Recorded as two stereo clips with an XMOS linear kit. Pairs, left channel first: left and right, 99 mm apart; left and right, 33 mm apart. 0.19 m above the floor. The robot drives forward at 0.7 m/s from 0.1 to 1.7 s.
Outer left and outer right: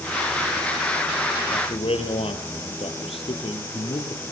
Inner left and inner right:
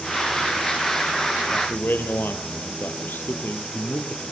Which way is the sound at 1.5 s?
70° left (ahead or behind).